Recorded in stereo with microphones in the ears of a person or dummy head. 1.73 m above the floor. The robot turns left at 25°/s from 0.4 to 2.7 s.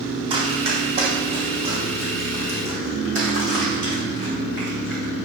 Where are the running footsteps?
30° right (ahead or behind), 4 m; by 5.1 s 60° right (ahead or behind), 7 m.